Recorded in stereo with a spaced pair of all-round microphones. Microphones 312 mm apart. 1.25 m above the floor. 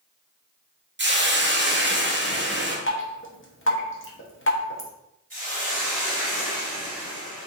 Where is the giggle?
No giggle in this recording.